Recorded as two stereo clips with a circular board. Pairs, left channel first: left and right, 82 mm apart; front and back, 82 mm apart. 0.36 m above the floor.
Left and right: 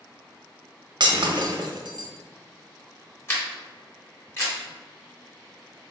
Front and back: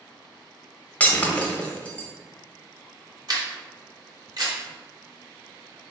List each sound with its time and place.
1.0 s breaking glass: 70° right, 0.5 m
3.3 s a camera shutter: 145° left, 1.5 m